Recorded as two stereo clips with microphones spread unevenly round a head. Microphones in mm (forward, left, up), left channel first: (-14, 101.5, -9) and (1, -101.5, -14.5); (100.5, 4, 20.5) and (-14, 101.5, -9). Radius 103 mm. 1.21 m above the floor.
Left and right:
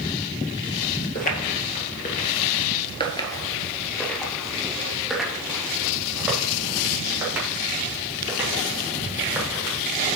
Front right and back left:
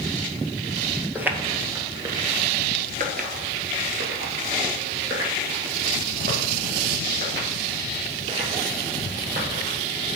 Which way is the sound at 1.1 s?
55° left.